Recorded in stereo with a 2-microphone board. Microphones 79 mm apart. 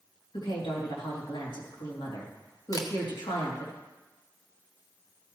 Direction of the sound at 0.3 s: 80° left.